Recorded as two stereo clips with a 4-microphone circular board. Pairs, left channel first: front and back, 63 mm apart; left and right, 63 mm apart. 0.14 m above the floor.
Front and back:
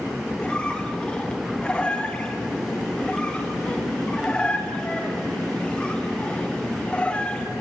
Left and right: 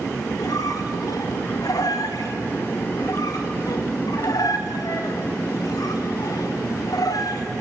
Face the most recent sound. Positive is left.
turn(degrees=75)